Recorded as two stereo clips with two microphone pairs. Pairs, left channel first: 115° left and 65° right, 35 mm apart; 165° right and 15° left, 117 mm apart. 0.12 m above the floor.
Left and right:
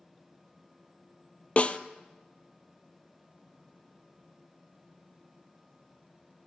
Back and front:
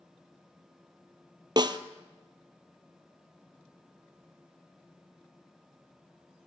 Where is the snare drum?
65° left, 0.7 m.